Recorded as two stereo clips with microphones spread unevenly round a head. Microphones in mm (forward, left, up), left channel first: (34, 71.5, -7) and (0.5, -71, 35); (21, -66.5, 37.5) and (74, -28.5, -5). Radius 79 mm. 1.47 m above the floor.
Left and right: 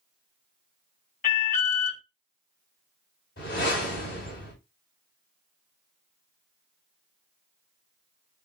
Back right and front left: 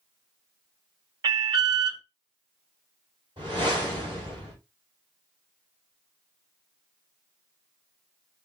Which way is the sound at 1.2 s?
45° left.